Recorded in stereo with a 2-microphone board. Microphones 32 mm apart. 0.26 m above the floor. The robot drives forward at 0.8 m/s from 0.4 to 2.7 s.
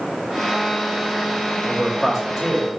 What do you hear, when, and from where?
1.6 s a man speaking: 5° right (ahead or behind), 1.2 m